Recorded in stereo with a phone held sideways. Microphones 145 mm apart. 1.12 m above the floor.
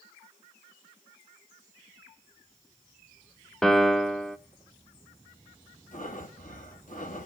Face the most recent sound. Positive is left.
turn(degrees=65)  # may be behind; listen again after turning